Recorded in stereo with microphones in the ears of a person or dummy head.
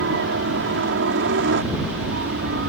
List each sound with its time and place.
0.0 s a helicopter: 65° right (ahead or behind)